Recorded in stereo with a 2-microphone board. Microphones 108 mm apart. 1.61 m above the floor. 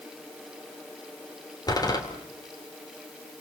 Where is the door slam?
35° left (ahead or behind), 3.5 m.